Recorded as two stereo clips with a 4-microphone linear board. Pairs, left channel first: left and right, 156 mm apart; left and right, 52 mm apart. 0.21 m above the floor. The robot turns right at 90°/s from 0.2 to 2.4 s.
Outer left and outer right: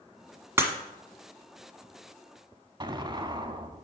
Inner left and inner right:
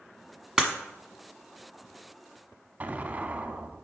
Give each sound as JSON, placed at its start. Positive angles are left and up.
{"t": 0.6, "sound": "breaking glass", "side_deg": -15, "distance_m": 1.1}
{"t": 2.8, "sound": "an explosion", "side_deg": -30, "distance_m": 0.7}